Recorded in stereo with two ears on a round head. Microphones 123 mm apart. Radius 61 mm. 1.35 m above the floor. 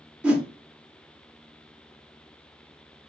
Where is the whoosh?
5° right (ahead or behind), 0.6 m.